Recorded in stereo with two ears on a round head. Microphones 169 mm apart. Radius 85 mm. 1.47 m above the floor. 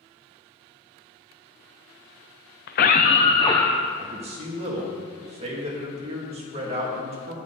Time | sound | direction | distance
2.7 | a scream | 55° left (ahead or behind) | 0.5 m
4.0 | a man speaking | 30° right (ahead or behind) | 2.5 m